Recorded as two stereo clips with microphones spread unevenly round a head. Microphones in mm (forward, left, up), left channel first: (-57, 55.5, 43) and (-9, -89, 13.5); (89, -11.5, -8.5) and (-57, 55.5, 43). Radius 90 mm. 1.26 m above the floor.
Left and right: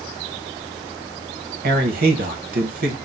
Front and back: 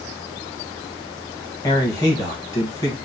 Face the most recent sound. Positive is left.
turn(degrees=-100)